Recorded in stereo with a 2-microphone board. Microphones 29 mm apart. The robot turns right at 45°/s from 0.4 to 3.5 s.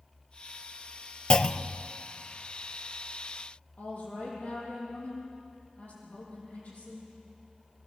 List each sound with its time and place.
1.3 s a clunk: 30° left (ahead or behind), 0.5 m; by 1.9 s 15° left (ahead or behind), 0.5 m
3.8 s a woman speaking: 65° left (ahead or behind), 9.5 m